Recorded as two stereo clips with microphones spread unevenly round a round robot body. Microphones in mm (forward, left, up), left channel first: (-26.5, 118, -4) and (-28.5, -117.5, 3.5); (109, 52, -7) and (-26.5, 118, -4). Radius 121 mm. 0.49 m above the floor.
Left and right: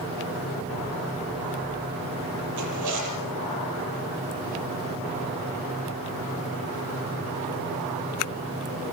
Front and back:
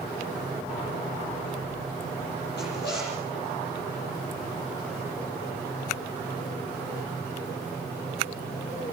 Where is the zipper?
75° right, 8.5 m.